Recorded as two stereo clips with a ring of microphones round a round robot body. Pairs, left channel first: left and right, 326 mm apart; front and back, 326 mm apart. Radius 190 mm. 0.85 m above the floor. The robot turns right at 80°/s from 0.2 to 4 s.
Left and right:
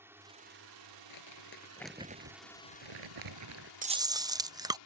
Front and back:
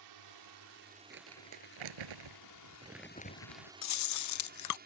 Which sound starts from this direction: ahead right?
Chewing, at 3.8 s.